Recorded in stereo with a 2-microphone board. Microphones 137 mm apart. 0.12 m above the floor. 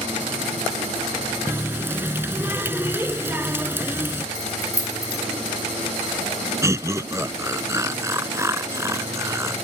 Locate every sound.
1.5 s a running tap: 15° right (ahead or behind)
4.3 s keys jangling: 25° left (ahead or behind)
6.6 s laughter: 20° right (ahead or behind)